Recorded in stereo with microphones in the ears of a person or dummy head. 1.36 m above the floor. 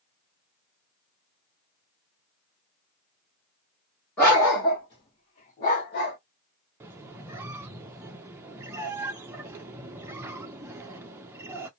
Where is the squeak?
10° right (ahead or behind), 0.6 m.